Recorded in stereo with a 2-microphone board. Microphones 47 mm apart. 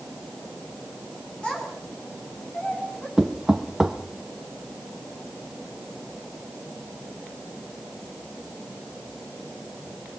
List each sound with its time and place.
1.4 s a child speaking: 25° left (ahead or behind), 8.5 m; by 3.1 s 30° left (ahead or behind), 8.5 m
3.2 s knocking: 10° right (ahead or behind), 1.2 m